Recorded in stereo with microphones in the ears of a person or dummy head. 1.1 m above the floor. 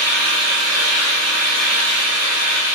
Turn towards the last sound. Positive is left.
turn(degrees=-60)  # may be behind; listen again after turning